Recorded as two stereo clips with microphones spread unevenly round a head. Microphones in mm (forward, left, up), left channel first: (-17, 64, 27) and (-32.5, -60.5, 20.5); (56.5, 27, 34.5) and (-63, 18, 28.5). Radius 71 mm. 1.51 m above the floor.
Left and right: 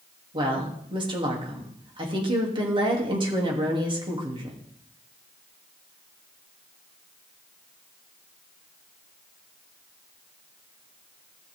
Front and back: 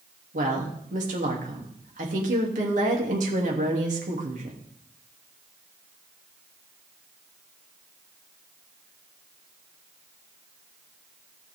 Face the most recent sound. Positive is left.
turn(degrees=-150)